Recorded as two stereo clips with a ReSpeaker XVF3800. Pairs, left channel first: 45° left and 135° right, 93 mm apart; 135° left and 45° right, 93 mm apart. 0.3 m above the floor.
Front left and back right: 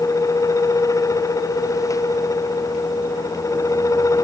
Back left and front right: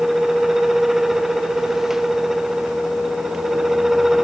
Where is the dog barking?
No dog barking in this recording.